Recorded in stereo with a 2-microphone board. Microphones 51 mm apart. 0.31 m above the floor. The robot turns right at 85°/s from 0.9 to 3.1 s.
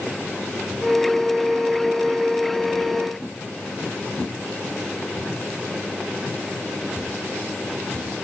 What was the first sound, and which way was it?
Only background noise.